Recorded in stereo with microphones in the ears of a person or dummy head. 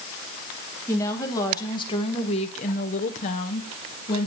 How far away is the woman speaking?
About 1.5 m.